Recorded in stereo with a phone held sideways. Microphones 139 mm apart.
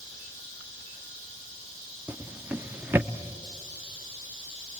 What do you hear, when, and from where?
2.1 s a drawer: 15° right (ahead or behind), 0.7 m